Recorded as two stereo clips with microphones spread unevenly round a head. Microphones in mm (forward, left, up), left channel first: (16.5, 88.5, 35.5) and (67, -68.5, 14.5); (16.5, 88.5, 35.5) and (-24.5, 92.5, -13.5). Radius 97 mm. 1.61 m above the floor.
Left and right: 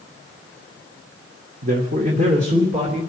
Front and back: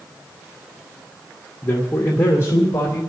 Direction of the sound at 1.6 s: 35° right.